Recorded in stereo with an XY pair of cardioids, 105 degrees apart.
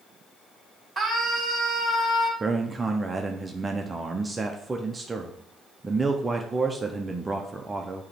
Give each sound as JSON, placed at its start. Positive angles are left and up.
{"t": 1.0, "sound": "a scream", "azimuth_deg": -20, "distance_m": 3.5}
{"t": 2.4, "sound": "a man speaking", "azimuth_deg": -20, "distance_m": 0.8}